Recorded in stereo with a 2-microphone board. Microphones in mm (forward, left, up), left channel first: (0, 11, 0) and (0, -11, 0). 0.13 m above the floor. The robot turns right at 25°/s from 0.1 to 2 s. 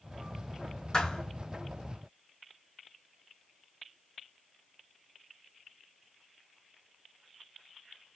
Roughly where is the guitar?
I don't hear a guitar.